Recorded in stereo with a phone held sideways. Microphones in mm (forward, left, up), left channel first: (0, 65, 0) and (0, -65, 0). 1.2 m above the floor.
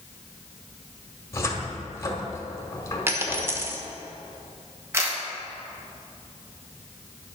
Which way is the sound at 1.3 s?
25° left (ahead or behind).